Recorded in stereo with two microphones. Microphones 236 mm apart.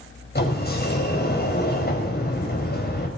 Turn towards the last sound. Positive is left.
turn(degrees=45)  # may be behind; listen again after turning